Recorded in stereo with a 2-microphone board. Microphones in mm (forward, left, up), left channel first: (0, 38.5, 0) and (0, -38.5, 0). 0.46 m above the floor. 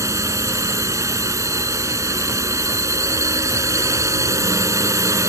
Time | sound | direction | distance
0.0 | a drone | 40° right (ahead or behind) | ?